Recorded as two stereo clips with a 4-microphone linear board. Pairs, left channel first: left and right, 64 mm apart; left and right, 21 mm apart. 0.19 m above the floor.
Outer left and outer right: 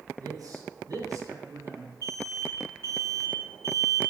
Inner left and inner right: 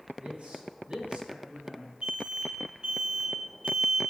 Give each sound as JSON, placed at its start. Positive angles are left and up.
{"t": 0.2, "sound": "a man speaking", "side_deg": -65, "distance_m": 3.0}
{"t": 2.0, "sound": "an alarm", "side_deg": -50, "distance_m": 3.5}